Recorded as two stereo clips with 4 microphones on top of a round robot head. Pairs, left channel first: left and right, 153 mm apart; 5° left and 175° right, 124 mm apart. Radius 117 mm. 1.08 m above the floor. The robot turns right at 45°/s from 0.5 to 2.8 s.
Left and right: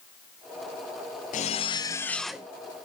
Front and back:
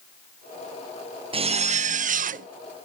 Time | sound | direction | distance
1.3 | a zipper | 135° left | 0.6 m